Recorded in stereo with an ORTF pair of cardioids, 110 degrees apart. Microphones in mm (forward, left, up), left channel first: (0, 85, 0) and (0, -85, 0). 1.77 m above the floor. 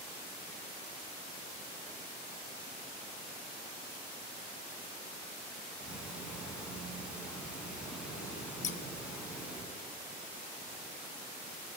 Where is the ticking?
5° right, 6 m.